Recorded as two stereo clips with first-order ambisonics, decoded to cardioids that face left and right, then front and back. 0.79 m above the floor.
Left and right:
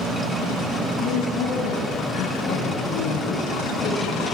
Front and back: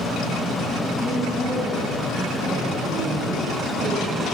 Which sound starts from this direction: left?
A woman speaking, at 1.0 s.